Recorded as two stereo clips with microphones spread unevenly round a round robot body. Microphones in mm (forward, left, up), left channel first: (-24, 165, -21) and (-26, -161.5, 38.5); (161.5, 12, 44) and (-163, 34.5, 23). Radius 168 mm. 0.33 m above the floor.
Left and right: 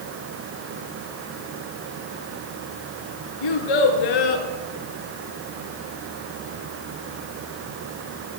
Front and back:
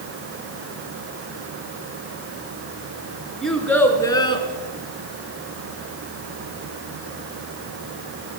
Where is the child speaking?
85° left, 4 m; by 4.5 s 70° left, 3.5 m.